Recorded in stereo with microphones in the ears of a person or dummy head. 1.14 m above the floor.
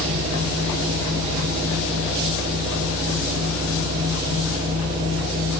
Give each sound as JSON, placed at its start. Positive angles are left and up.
{"t": 0.0, "sound": "a machine running", "side_deg": -25, "distance_m": 0.9}